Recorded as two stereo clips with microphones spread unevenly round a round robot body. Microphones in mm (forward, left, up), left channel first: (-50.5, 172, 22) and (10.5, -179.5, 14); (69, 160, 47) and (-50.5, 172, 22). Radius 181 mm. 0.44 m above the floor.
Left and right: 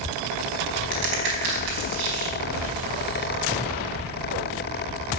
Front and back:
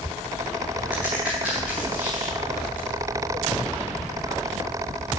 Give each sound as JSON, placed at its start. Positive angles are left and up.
{"t": 0.9, "sound": "a crack", "azimuth_deg": -105, "distance_m": 4.0}